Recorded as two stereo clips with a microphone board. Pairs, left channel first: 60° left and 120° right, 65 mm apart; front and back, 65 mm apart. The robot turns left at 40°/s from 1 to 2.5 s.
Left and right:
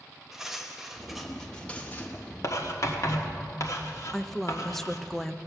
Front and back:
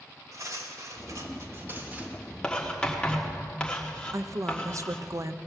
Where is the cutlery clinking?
160° left, 1.2 m; by 2.1 s 115° left, 1.2 m.